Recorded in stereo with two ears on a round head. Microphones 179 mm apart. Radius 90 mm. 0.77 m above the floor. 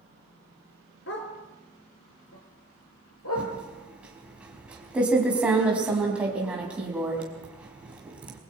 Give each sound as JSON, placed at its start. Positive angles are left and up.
{"t": 1.1, "sound": "a dog barking", "side_deg": 60, "distance_m": 4.0}
{"t": 3.4, "sound": "typing on a keyboard", "side_deg": -5, "distance_m": 4.5}